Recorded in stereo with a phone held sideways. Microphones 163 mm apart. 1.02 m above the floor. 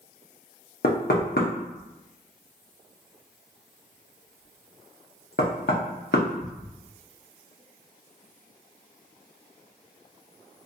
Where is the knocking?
80° left, 0.8 m.